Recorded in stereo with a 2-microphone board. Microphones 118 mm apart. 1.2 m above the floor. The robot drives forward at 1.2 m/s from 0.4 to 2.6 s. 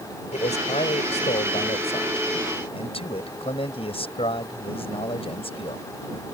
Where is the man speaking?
75° left (ahead or behind); by 5.8 s 55° left (ahead or behind).